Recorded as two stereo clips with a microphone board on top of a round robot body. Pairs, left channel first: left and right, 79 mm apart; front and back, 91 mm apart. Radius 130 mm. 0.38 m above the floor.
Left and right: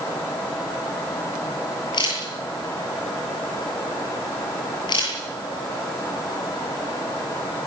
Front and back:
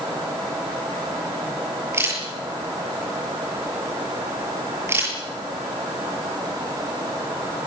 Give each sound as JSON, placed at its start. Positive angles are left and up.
{"t": 1.9, "sound": "a camera shutter", "azimuth_deg": 120, "distance_m": 8.0}